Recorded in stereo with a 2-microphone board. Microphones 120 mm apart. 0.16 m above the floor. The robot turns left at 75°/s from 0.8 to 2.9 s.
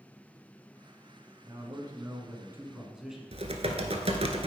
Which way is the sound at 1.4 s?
60° right.